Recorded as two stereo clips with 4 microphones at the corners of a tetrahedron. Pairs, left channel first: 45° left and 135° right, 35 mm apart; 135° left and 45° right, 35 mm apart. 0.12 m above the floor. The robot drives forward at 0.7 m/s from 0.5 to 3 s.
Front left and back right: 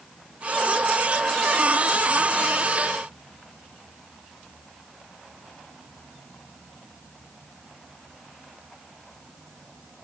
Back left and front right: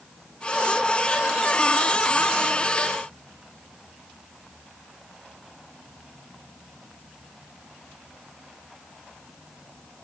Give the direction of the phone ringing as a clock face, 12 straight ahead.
No phone ringing in this recording.